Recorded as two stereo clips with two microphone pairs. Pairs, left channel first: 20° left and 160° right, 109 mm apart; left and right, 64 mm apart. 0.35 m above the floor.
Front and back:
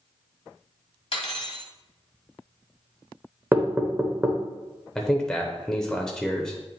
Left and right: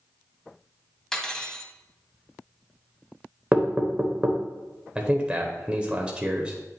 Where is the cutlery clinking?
5° left, 1.1 m.